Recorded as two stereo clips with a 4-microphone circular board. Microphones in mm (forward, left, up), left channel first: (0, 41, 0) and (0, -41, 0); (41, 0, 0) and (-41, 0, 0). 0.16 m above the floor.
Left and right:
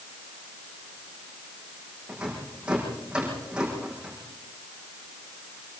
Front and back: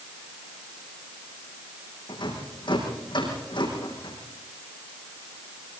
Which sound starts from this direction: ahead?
A rattle, at 2.1 s.